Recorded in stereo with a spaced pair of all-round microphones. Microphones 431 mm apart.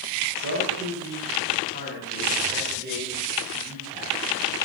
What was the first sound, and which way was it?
A man speaking, 40° right (ahead or behind).